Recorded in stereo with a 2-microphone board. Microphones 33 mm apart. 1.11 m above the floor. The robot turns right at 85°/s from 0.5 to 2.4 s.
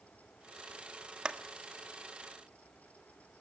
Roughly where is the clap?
Right.